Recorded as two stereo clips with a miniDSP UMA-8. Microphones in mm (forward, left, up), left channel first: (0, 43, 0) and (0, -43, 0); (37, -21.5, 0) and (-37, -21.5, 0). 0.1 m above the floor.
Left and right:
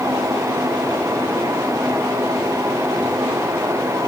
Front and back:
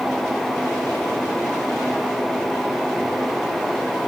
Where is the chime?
No chime in this recording.